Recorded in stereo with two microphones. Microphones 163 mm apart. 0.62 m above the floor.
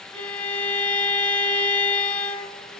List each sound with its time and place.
0.1 s a violin: 10° left (ahead or behind), 2 m